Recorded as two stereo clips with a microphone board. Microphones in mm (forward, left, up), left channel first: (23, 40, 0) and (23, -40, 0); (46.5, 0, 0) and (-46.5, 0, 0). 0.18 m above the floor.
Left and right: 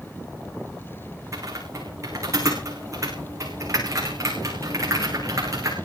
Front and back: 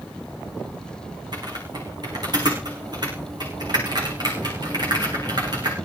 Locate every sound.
1.3 s typing on a keyboard: 140° right, 7 m